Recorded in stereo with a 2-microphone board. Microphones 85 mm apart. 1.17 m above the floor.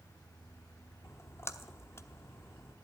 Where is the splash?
35° left (ahead or behind), 0.9 m.